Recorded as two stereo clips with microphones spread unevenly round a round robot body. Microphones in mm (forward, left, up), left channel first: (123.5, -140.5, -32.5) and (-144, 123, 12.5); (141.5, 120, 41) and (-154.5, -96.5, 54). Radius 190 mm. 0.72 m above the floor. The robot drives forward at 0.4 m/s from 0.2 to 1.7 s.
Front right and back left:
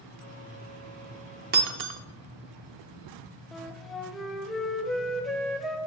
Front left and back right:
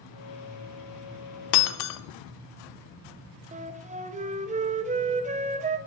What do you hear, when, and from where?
1.5 s breaking glass: 70° left, 0.6 m; by 2.0 s 75° left, 0.6 m
3.5 s a flute: 110° right, 0.6 m